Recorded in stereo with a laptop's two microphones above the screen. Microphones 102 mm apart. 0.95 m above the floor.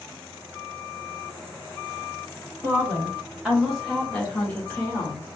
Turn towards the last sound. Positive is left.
turn(degrees=25)  # may be behind; listen again after turning